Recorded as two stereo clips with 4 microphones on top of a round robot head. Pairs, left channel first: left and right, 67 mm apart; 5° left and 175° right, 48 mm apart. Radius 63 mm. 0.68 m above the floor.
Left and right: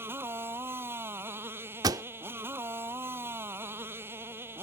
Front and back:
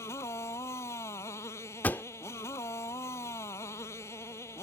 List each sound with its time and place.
0.0 s a motorcycle: 35° right
1.8 s a pop: 60° right